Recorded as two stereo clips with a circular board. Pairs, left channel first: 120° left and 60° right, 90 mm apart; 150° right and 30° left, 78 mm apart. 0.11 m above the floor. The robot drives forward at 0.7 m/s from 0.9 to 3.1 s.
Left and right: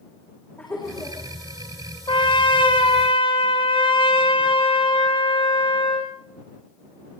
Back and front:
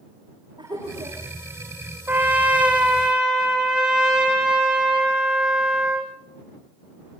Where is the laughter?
50° left, 6.5 m; by 1.2 s 55° left, 6.5 m.